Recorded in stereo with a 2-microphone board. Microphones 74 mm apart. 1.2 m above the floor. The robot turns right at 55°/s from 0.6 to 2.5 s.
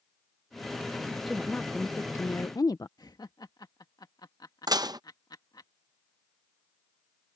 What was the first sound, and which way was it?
A woman speaking, straight ahead.